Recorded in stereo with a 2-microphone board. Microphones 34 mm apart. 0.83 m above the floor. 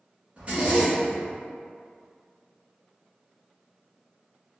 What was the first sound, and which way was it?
A zipper, 35° right (ahead or behind).